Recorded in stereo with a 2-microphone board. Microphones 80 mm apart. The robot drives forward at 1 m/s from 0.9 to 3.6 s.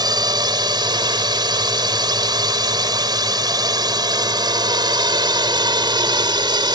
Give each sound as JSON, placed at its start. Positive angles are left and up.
{"t": 0.0, "sound": "a drone", "side_deg": -60}